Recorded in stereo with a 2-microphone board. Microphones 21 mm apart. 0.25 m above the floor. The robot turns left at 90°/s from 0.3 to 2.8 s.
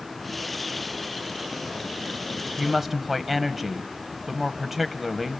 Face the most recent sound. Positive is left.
turn(degrees=-10)  # may be behind; listen again after turning